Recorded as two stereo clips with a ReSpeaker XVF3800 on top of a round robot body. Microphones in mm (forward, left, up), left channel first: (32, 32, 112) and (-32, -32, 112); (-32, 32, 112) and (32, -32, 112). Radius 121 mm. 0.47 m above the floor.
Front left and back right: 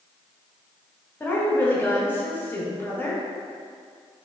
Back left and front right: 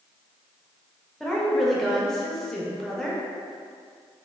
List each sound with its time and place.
1.2 s a woman speaking: 55° left, 0.8 m